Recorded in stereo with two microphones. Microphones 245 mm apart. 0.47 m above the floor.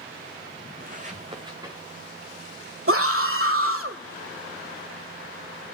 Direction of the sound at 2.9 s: 60° right (ahead or behind).